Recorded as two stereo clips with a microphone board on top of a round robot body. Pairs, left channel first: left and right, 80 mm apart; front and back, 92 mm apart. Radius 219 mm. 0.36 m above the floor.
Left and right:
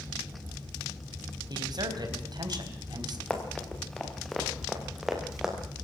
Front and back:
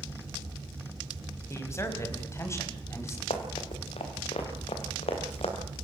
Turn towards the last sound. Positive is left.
turn(degrees=-10)